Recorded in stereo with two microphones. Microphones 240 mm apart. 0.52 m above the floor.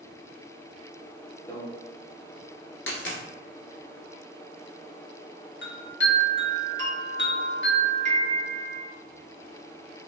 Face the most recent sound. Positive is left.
turn(degrees=50)  # may be behind; listen again after turning